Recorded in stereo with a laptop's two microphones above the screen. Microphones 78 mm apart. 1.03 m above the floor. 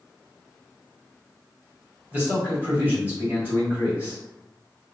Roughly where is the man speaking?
Right.